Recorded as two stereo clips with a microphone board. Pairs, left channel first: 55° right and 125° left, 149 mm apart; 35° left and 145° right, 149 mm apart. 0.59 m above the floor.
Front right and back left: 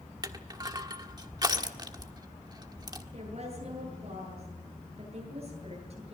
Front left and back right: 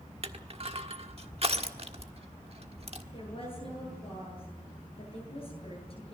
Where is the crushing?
Straight behind, 1.4 m.